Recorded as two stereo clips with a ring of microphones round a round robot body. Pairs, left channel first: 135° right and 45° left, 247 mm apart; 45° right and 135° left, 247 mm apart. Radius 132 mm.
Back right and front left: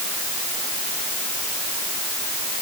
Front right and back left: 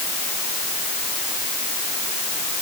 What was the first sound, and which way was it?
Only background noise.